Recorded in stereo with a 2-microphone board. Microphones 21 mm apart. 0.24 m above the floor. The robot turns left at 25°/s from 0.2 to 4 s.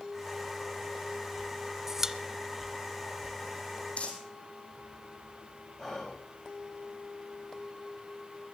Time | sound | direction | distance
1.9 | a pop | 20° right (ahead or behind) | 0.6 m
4.0 | crumpling | 60° left (ahead or behind) | 3 m
5.8 | whispering | 20° left (ahead or behind) | 6 m